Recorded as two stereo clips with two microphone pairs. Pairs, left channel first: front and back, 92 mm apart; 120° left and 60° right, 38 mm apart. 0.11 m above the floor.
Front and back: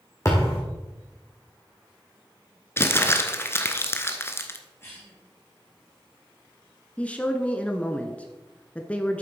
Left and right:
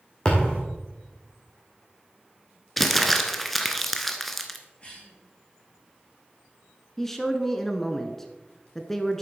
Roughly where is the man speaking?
Ahead left.